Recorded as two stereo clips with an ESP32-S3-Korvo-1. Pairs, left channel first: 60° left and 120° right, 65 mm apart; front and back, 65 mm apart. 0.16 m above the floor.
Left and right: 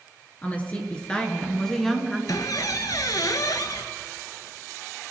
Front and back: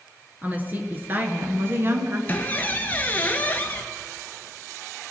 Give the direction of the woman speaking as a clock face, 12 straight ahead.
8 o'clock.